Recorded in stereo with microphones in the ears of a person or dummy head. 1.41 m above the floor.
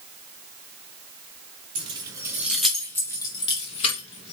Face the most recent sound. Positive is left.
turn(degrees=45)  # may be behind; listen again after turning